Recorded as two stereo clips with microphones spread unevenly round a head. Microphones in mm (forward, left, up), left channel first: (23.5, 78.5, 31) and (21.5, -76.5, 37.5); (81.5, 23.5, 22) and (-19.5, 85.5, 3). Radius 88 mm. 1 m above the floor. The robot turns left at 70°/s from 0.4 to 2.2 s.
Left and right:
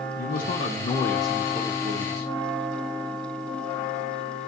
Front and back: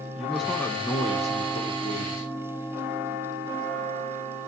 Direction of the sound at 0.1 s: 65° left.